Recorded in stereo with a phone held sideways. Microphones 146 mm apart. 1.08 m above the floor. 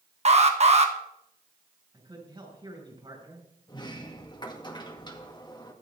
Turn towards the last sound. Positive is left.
turn(degrees=30)  # may be behind; listen again after turning